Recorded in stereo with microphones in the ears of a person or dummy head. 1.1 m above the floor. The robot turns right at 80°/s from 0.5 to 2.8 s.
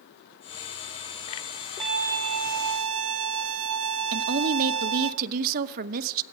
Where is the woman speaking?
40° right (ahead or behind), 0.7 m.